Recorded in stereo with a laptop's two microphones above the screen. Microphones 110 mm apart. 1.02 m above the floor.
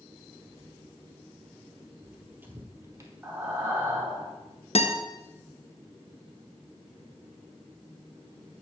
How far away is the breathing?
About 1.4 m.